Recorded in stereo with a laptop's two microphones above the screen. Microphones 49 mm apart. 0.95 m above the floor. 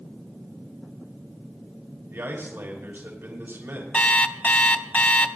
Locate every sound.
2.1 s a man speaking: 55° right (ahead or behind), 5 m
3.9 s an alarm clock: 35° left (ahead or behind), 1.1 m